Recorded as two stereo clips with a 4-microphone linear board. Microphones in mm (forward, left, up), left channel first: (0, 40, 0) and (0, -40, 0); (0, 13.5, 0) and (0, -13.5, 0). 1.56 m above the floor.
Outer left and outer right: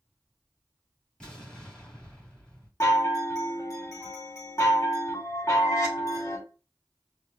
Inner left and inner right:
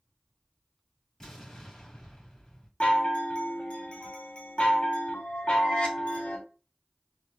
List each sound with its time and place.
1.2 s an explosion: 10° left (ahead or behind), 2.5 m
2.8 s a chime: 40° left (ahead or behind), 1.3 m